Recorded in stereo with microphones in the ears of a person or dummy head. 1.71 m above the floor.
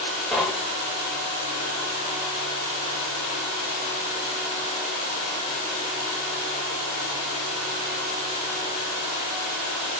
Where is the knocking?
Centre (ahead or behind), 1.3 m.